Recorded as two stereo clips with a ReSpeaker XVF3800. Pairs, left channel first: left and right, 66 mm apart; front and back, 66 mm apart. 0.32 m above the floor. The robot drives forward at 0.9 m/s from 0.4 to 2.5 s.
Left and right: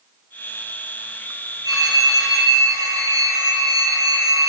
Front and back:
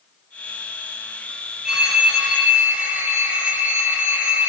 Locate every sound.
1.6 s a phone ringing: 100° right, 5 m; by 4.5 s 105° right, 5.5 m